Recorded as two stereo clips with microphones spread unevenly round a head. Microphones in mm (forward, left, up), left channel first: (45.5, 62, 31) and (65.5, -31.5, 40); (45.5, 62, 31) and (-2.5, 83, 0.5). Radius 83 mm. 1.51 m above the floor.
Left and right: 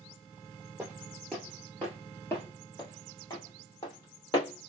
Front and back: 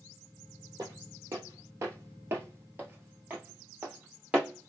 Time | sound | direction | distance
0.8 | footsteps | 140° right | 1.6 m